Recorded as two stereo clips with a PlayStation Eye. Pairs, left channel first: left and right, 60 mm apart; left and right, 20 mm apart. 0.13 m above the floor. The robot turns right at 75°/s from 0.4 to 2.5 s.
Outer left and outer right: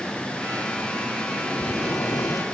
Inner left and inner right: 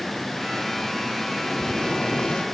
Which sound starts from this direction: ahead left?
Boiling, at 1.5 s.